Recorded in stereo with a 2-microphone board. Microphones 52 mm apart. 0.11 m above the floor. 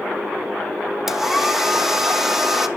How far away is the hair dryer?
About 1.3 m.